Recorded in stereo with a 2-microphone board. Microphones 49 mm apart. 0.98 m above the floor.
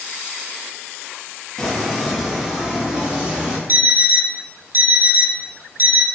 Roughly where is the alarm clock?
Right.